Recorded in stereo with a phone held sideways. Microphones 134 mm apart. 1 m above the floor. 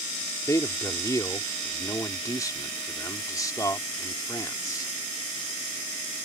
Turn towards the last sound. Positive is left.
turn(degrees=25)  # may be behind; listen again after turning